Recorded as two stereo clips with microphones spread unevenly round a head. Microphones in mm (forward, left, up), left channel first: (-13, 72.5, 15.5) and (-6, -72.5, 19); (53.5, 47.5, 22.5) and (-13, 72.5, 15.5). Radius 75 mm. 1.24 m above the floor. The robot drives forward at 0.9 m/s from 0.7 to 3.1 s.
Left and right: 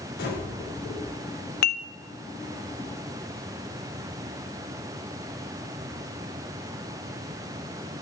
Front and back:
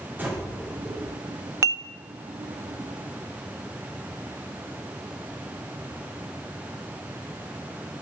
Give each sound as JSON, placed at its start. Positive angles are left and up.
{"t": 0.2, "sound": "breathing", "azimuth_deg": 95, "distance_m": 4.5}
{"t": 1.6, "sound": "dishes clattering", "azimuth_deg": 110, "distance_m": 0.6}